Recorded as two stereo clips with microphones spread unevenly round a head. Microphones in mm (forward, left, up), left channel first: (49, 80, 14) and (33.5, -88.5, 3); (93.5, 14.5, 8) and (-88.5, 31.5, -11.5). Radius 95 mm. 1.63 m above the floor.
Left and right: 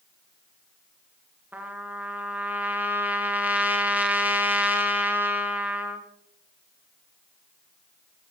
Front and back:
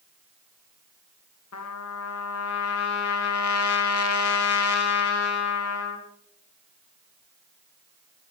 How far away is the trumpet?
About 2 m.